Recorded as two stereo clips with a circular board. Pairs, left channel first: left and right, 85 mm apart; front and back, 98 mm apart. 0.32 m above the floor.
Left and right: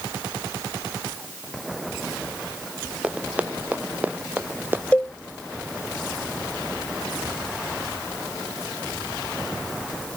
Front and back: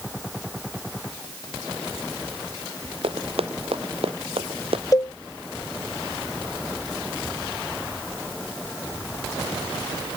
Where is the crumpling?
I don't hear crumpling.